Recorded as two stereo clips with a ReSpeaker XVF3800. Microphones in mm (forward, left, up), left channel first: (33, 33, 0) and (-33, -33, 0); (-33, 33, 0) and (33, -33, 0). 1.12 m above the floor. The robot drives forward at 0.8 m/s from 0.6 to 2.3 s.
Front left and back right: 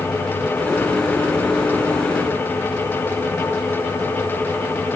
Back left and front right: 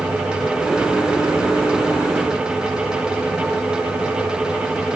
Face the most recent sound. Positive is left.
No sound to turn to.